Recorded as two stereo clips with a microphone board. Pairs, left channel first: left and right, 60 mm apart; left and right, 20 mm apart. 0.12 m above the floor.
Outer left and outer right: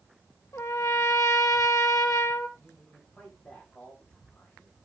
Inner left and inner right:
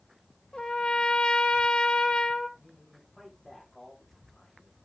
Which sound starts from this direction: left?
A trumpet, at 0.5 s.